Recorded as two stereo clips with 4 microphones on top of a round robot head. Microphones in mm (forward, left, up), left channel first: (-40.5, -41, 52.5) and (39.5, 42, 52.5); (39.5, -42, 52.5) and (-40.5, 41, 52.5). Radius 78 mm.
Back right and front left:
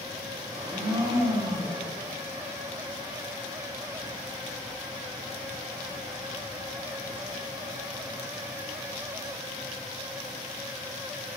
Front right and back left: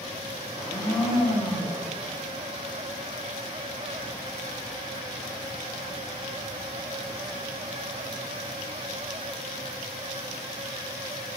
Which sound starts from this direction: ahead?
A blender, at 0.5 s.